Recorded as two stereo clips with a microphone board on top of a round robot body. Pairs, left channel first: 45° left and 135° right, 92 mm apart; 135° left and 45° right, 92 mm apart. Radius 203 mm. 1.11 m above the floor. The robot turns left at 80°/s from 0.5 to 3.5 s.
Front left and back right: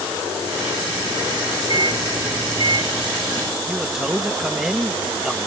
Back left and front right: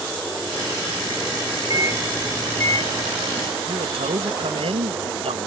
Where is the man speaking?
50° right.